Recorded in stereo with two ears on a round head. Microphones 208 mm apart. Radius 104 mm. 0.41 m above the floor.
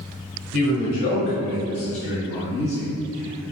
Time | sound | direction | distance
0.5 | a man speaking | 55° left (ahead or behind) | 1.8 m